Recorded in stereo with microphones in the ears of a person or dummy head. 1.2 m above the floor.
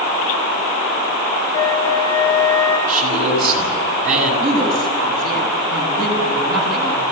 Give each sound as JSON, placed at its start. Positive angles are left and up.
{"t": 1.5, "sound": "a flute", "side_deg": 15, "distance_m": 4.5}
{"t": 2.9, "sound": "a man speaking", "side_deg": -45, "distance_m": 7.0}
{"t": 4.4, "sound": "a woman speaking", "side_deg": -60, "distance_m": 9.0}